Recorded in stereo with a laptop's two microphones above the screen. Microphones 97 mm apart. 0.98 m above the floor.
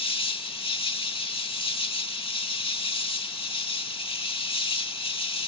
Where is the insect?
70° left (ahead or behind).